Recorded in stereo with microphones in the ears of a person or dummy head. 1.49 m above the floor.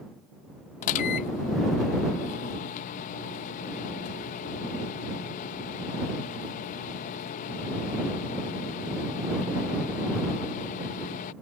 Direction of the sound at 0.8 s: 50° left (ahead or behind).